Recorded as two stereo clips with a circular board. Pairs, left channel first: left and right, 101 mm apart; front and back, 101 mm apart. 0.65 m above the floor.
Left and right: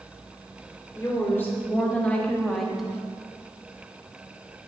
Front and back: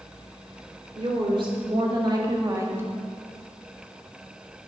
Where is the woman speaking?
155° left, 2 m; by 2.9 s 165° right, 1.0 m.